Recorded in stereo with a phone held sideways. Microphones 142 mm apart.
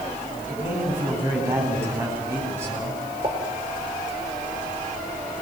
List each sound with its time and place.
0.5 s a man speaking: 20° right (ahead or behind), 9.5 m
3.2 s a pop: 40° right (ahead or behind), 5.5 m